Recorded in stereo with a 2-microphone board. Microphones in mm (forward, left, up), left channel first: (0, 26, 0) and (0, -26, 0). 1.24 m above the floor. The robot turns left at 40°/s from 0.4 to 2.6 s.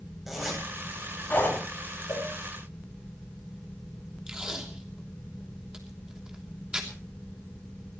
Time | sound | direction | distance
0.3 | a zipper | 5° right (ahead or behind) | 8.5 m
2.1 | a cowbell | 65° left (ahead or behind) | 4.5 m
4.3 | tape being pulled | 15° right (ahead or behind) | 3 m